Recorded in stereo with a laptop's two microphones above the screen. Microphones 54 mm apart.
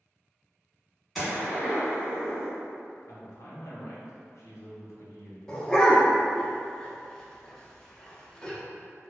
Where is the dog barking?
10° left (ahead or behind), 0.6 m.